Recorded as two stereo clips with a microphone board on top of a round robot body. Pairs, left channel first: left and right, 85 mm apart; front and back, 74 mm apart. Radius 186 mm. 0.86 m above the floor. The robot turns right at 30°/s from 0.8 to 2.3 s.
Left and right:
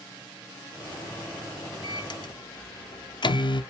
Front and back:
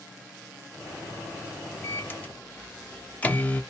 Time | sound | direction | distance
1.8 | a microwave | 55° left | 0.7 m